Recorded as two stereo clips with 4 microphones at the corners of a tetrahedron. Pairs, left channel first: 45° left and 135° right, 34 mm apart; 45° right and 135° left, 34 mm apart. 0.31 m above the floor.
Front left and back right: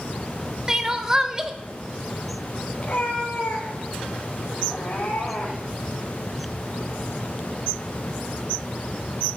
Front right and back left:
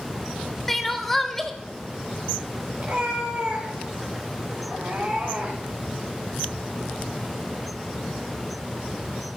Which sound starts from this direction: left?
A cat meowing, at 2.8 s.